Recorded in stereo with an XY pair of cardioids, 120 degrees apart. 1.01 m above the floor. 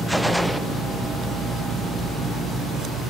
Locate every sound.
0.1 s a gunshot: straight ahead, 0.5 m